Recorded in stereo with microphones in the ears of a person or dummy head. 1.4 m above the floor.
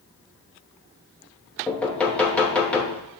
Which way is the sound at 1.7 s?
10° left (ahead or behind).